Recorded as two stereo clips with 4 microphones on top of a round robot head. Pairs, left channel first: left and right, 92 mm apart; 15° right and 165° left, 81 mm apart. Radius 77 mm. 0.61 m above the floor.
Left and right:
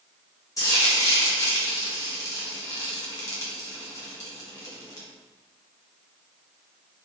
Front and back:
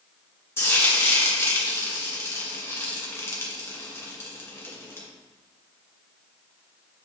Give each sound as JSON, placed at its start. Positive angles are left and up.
{"t": 0.6, "sound": "frying", "azimuth_deg": 40, "distance_m": 2.0}